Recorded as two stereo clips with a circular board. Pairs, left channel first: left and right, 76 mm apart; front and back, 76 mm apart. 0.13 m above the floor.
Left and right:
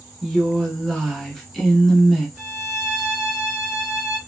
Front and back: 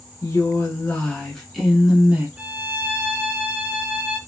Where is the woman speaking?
Straight ahead, 1.5 m; by 2.3 s 170° left, 1.3 m.